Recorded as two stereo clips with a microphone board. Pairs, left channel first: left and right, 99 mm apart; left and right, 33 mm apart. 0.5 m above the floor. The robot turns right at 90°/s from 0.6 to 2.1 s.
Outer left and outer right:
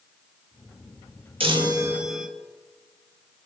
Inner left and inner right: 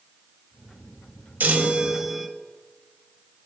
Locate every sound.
1.4 s a chime: 70° right, 1.0 m; by 2.3 s 5° right, 1.0 m